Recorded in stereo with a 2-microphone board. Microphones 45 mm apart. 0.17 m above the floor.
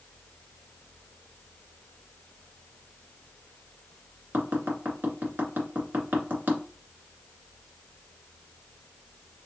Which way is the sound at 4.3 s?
45° right (ahead or behind).